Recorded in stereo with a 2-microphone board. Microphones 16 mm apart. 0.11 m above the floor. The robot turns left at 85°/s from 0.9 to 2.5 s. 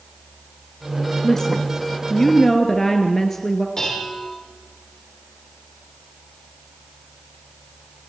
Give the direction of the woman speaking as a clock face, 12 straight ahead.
7 o'clock.